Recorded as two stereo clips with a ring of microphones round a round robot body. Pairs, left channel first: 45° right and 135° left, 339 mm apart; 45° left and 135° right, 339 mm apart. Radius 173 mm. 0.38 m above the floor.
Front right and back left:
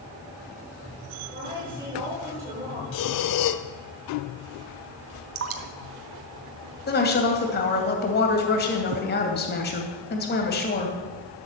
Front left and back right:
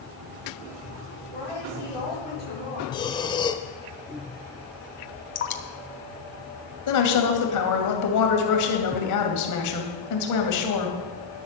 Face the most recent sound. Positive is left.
turn(degrees=15)